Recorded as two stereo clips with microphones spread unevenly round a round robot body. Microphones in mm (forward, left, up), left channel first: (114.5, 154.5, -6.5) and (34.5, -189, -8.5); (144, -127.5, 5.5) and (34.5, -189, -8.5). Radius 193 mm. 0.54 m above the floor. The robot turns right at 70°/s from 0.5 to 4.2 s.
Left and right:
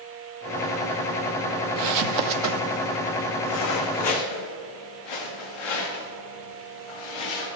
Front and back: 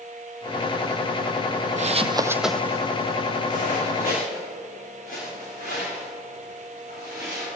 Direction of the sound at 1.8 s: 125° right.